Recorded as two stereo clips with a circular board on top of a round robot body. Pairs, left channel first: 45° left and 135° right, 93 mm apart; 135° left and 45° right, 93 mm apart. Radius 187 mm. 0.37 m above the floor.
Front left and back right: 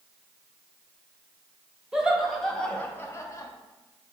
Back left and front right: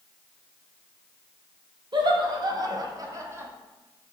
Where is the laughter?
55° right, 1.1 m; by 3.5 s 10° left, 1.0 m.